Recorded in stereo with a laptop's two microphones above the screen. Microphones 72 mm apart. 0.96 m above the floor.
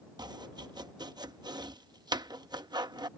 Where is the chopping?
80° right.